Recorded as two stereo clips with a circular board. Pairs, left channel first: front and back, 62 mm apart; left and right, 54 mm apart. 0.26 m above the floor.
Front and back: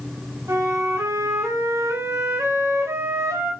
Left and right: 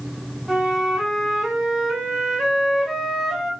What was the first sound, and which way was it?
A flute, 170° right.